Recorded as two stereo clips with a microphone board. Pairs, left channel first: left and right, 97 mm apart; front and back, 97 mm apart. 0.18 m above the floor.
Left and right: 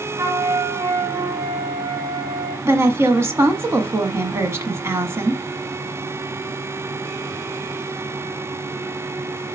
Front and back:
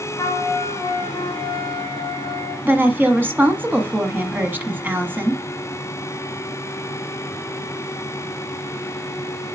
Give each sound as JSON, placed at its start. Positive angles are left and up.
{"t": 0.2, "sound": "a flute", "azimuth_deg": -55, "distance_m": 3.0}
{"t": 2.6, "sound": "a woman speaking", "azimuth_deg": -125, "distance_m": 1.3}